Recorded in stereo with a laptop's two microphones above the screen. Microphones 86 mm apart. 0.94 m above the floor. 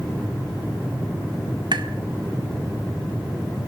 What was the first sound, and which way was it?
Tapping, 65° right (ahead or behind).